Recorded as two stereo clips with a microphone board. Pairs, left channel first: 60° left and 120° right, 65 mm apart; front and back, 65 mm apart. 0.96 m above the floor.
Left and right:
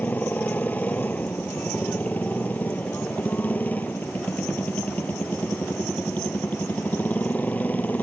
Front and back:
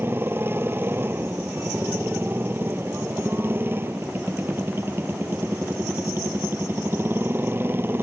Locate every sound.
0.0 s a motorcycle: 125° left